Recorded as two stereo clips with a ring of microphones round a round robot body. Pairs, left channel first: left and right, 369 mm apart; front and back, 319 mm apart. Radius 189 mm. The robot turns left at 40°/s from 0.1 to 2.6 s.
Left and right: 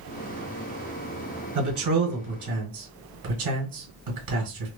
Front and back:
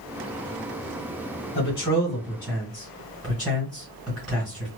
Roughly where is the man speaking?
Ahead right.